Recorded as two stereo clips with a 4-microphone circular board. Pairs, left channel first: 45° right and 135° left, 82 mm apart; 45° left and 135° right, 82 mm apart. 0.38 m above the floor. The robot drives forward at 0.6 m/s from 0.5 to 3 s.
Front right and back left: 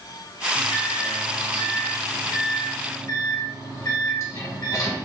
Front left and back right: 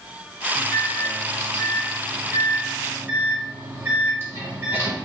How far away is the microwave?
About 1.9 m.